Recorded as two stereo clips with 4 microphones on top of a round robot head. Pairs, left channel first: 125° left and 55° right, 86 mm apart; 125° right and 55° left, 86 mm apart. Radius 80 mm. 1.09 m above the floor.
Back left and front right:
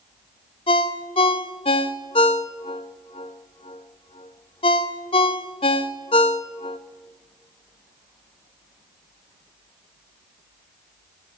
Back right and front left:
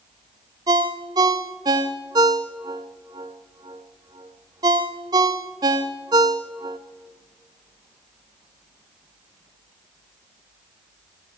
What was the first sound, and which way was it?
A ringtone, 100° left.